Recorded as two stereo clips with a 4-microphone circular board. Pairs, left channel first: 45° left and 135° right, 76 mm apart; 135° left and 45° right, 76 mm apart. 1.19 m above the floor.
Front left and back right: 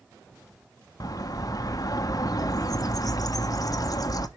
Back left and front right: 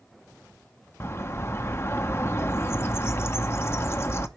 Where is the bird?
80° left, 0.8 m.